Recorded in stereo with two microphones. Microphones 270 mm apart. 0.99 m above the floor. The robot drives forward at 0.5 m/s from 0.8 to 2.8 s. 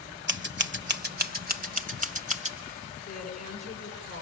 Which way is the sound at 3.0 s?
90° left.